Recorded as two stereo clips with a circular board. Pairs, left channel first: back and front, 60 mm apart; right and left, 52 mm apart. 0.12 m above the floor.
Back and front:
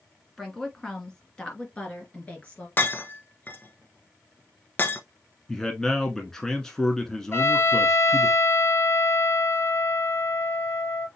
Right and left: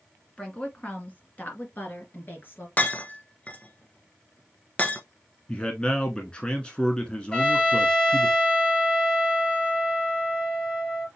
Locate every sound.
0.4 s a woman speaking: 100° right, 1.6 m; by 2.7 s 120° right, 2.5 m
2.8 s breaking glass: 140° right, 1.0 m
5.5 s a man speaking: 115° right, 1.1 m
7.3 s a trumpet: 155° right, 1.8 m